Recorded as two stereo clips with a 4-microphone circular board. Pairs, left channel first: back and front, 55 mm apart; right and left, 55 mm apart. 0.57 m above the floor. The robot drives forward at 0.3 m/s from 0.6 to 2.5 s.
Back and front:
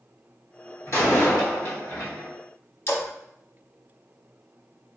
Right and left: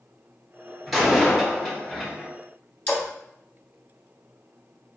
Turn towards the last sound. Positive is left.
turn(degrees=-150)